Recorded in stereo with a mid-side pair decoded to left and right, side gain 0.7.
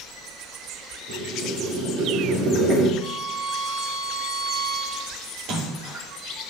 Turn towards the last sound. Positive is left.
turn(degrees=-60)